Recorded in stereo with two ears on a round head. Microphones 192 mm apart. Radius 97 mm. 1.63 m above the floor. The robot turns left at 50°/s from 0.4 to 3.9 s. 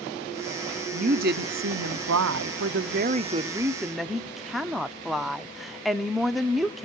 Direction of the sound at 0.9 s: 30° right.